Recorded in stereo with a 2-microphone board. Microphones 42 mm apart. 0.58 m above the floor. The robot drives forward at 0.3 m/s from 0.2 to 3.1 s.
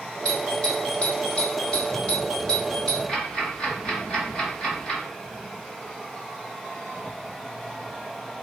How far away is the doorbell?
About 1.2 m.